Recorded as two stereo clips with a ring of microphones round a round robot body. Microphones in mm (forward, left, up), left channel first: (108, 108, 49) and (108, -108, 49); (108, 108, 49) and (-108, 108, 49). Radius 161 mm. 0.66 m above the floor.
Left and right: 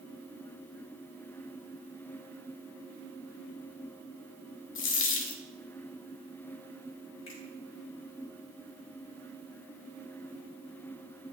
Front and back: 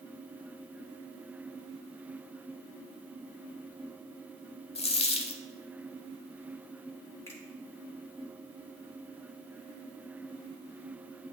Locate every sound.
4.8 s a dropped coin: 65° left, 0.9 m
7.3 s a finger snap: 75° left, 2.5 m